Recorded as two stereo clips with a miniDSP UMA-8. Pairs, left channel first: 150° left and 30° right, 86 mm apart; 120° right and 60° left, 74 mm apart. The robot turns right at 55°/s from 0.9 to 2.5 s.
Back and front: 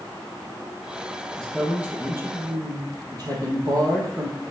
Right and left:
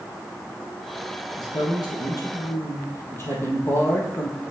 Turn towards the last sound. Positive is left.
turn(degrees=-65)